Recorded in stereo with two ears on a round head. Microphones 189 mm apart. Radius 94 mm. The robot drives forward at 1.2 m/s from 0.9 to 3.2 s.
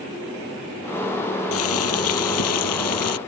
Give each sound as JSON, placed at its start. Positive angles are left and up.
{"t": 1.5, "sound": "boiling", "side_deg": 75}